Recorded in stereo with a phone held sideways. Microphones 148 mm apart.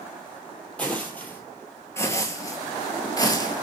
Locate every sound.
0.8 s footsteps: 10° left (ahead or behind), 1.4 m; by 3.6 s 25° left (ahead or behind), 1.1 m